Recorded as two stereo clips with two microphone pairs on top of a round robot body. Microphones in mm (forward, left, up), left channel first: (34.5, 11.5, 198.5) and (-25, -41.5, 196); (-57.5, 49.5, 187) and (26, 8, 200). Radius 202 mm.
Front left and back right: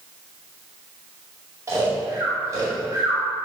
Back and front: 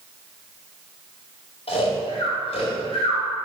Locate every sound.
1.7 s snoring: 165° left, 1.9 m